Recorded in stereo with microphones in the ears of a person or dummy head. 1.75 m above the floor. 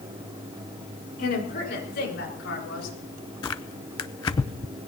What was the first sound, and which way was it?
A woman speaking, 50° left (ahead or behind).